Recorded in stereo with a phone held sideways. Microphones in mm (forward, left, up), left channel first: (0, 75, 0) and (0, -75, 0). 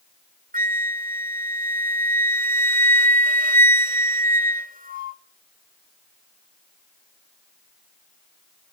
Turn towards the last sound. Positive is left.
turn(degrees=-70)  # may be behind; listen again after turning